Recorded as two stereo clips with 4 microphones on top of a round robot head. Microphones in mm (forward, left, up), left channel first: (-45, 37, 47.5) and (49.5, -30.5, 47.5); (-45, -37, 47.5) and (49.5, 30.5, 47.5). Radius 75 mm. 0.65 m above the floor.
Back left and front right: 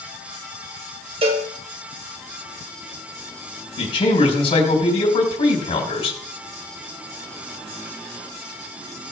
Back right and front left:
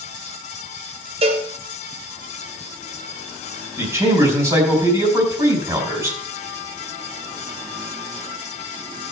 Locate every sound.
1.2 s a cowbell: straight ahead, 2.5 m
3.8 s a man speaking: 100° left, 3.5 m